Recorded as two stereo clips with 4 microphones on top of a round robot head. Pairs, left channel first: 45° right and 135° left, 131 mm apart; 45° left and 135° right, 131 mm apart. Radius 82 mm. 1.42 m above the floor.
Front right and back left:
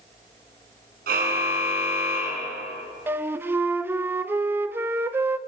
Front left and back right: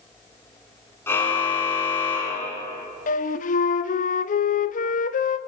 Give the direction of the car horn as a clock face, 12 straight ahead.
8 o'clock.